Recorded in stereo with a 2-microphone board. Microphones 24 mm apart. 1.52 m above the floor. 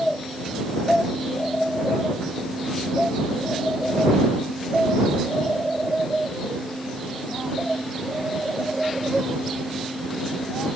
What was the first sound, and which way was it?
Only background noise.